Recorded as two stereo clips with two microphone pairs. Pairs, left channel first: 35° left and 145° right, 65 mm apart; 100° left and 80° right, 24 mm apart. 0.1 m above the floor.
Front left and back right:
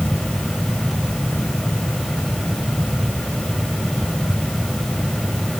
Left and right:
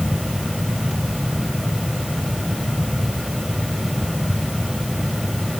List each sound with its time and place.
Only background noise.